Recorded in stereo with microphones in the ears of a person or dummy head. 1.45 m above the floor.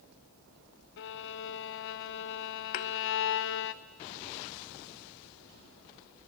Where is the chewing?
No chewing in this recording.